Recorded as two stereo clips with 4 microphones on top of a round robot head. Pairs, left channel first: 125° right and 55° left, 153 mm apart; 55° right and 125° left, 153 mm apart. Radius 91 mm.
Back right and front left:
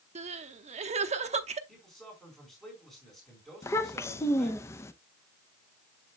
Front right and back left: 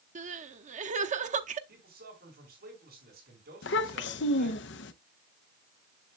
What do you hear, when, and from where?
0.1 s crying: 95° left, 0.8 m
1.7 s a man speaking: 150° left, 4.5 m
3.6 s a child speaking: 50° right, 0.6 m